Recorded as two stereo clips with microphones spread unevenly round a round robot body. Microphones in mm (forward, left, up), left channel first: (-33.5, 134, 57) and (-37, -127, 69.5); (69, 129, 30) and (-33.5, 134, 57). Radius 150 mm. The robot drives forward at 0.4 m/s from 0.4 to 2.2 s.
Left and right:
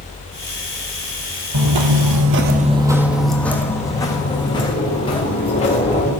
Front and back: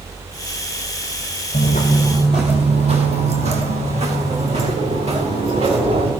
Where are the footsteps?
60° right, 1.1 m; by 6.1 s 160° left, 4 m.